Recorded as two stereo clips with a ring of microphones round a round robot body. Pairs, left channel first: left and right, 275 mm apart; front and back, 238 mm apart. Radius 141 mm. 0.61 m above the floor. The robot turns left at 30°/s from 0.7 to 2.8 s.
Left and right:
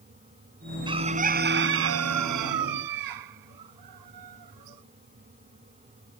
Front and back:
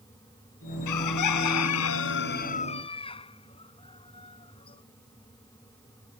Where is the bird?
15° right; by 4.8 s 75° right.